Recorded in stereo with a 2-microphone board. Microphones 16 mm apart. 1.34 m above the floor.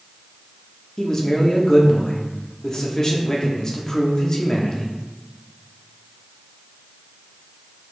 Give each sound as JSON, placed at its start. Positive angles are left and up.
{"t": 1.0, "sound": "a man speaking", "side_deg": 40, "distance_m": 0.7}